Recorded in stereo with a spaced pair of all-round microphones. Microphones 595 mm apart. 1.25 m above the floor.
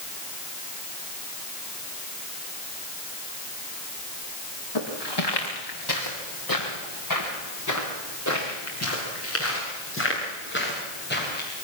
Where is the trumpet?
No trumpet in this recording.